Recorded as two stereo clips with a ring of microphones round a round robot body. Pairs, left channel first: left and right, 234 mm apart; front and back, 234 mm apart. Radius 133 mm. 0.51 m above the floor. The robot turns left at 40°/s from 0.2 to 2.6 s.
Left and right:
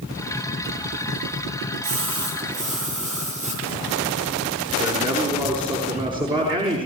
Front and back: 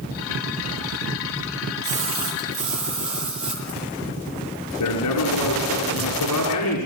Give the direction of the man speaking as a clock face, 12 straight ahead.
1 o'clock.